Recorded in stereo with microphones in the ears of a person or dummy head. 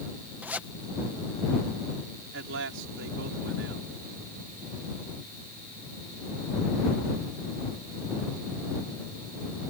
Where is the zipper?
10° right (ahead or behind).